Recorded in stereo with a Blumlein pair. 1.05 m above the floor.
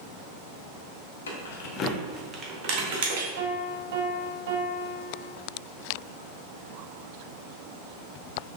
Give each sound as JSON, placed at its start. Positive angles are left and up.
{"t": 1.3, "sound": "keys jangling", "azimuth_deg": 65, "distance_m": 1.0}
{"t": 3.4, "sound": "a piano", "azimuth_deg": -50, "distance_m": 0.9}